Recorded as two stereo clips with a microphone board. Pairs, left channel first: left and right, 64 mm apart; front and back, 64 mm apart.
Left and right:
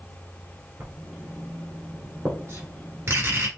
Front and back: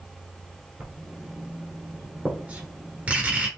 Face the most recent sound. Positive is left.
turn(degrees=-120)